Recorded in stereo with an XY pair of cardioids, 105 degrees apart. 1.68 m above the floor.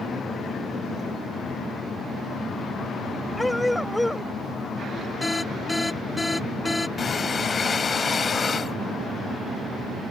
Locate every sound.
3.4 s a dog barking: 10° left
5.2 s an alarm: 15° left
7.0 s breathing: 35° left